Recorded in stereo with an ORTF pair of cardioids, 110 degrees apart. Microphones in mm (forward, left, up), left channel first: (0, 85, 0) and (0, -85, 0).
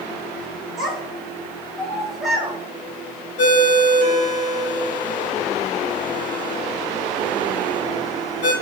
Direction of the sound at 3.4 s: 40° left.